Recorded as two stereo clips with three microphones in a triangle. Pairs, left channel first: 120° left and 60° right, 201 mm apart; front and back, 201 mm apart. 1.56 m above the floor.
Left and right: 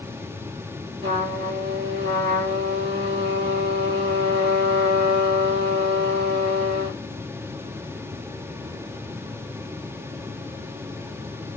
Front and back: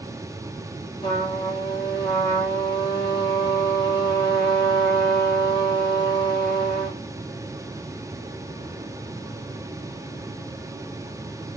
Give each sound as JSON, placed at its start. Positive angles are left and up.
{"t": 1.0, "sound": "a trumpet", "azimuth_deg": -65, "distance_m": 1.6}